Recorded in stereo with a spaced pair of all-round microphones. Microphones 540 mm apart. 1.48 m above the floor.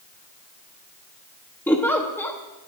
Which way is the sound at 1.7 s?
5° left (ahead or behind).